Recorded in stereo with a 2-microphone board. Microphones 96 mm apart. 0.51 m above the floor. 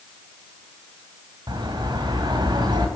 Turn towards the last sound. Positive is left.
turn(degrees=-50)  # may be behind; listen again after turning